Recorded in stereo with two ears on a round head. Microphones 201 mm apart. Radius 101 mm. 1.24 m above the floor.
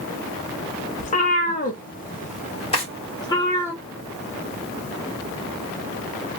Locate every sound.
1.0 s a cat meowing: 30° left (ahead or behind), 0.9 m; by 3.7 s 15° left (ahead or behind), 1.1 m
2.7 s a drawer: 25° left (ahead or behind), 1.3 m